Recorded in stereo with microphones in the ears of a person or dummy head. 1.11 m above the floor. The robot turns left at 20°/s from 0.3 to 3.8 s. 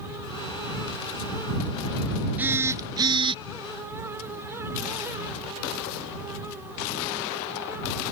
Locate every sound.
2.4 s a phone buzzing: centre (ahead or behind); by 3.4 s 25° right (ahead or behind)